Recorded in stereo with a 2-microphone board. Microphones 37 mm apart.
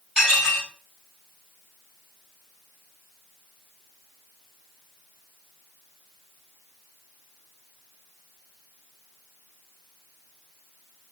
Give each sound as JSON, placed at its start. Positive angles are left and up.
{"t": 0.2, "sound": "dishes clattering", "side_deg": -20, "distance_m": 6.0}